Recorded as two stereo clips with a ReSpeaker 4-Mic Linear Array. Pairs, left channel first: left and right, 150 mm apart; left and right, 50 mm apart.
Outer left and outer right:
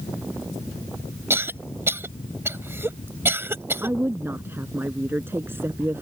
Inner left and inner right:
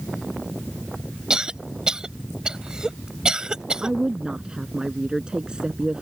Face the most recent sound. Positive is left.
turn(degrees=-15)  # may be behind; listen again after turning